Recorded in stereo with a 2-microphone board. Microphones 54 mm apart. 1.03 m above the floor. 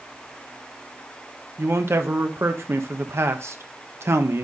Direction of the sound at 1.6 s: 55° right (ahead or behind).